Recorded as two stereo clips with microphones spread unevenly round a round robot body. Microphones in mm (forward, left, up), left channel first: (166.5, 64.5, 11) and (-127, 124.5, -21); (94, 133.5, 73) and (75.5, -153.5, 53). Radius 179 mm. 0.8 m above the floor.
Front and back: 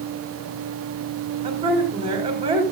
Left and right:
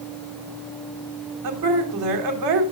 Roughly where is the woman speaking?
Behind right.